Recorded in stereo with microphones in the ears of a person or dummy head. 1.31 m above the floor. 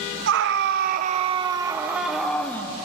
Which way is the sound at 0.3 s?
70° right (ahead or behind).